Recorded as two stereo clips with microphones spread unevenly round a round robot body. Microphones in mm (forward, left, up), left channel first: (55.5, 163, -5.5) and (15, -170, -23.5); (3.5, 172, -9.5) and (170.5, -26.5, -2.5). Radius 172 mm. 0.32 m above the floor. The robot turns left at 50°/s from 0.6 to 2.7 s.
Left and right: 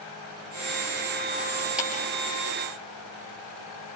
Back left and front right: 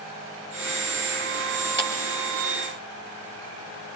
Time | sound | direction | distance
1.8 | a clap | 10° right | 5 m